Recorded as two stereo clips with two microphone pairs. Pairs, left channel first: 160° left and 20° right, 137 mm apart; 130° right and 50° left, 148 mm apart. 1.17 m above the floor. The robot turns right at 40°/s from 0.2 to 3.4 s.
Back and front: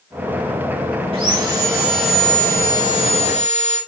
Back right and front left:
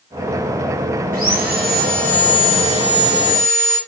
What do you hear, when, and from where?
1.1 s sawing: 30° left, 7 m; by 3.8 s 120° left, 7 m